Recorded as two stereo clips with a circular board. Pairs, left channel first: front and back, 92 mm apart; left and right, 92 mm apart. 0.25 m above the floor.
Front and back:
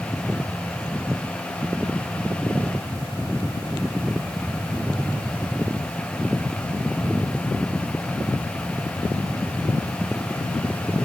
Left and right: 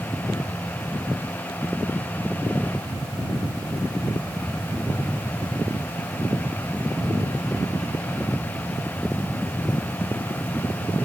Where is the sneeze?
No sneeze in this recording.